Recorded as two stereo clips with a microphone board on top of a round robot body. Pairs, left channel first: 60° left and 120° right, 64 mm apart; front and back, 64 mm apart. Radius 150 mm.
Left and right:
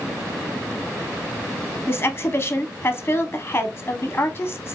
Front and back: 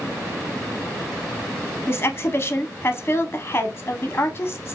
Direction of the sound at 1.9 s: 30° left.